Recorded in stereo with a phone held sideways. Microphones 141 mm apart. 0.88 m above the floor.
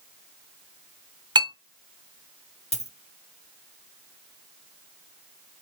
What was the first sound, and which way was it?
A clink, 35° right (ahead or behind).